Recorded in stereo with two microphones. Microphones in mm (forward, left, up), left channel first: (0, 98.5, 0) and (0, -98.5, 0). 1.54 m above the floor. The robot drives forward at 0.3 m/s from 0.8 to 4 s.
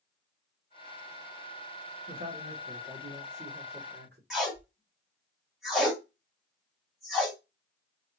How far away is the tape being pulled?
About 2 m.